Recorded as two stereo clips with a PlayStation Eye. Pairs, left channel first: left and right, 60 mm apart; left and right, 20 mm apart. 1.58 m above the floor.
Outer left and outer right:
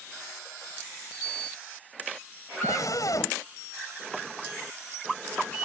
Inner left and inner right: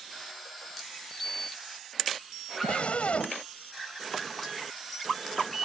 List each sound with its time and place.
2.6 s a scream: 70° left (ahead or behind)